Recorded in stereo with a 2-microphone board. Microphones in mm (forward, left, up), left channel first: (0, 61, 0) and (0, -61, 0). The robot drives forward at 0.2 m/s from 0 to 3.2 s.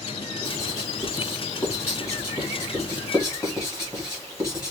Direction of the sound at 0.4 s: 30° left (ahead or behind).